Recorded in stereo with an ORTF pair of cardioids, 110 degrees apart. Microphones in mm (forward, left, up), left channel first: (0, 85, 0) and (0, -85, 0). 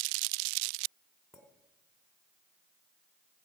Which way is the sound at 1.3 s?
Straight ahead.